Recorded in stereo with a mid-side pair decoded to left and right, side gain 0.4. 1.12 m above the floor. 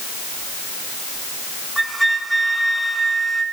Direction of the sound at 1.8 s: 5° right.